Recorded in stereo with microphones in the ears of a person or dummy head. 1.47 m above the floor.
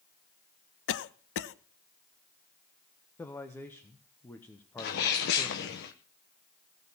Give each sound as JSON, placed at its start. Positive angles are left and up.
{"t": 0.9, "sound": "a cough", "side_deg": 65, "distance_m": 0.9}
{"t": 3.2, "sound": "a man speaking", "side_deg": 10, "distance_m": 1.0}
{"t": 4.8, "sound": "a sneeze", "side_deg": 55, "distance_m": 1.0}